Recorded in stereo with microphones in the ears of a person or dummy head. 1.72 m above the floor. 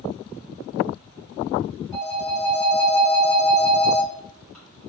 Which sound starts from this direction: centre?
A phone ringing, at 1.9 s.